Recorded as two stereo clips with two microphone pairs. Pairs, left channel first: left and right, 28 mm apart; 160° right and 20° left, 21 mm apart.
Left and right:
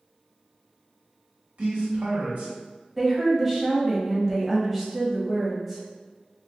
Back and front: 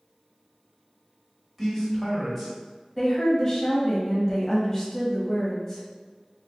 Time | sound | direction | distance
1.6 | a man speaking | 65° right | 1.5 m
3.0 | a woman speaking | 170° right | 1.0 m